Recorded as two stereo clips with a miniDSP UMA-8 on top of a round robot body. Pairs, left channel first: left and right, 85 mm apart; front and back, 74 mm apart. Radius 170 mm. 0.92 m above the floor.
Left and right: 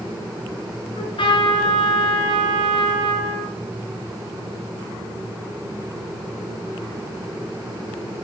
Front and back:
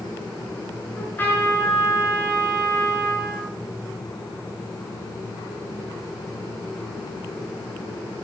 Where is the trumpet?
65° left, 6.5 m.